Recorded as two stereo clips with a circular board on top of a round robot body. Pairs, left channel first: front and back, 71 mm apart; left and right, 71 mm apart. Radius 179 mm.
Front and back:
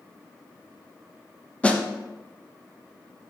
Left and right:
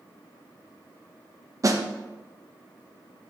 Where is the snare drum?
70° right, 1.3 m.